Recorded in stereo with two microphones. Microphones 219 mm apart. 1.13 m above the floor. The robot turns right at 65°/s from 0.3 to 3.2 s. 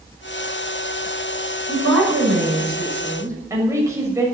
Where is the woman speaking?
110° right, 6.5 m; by 4.3 s 15° right, 6.5 m.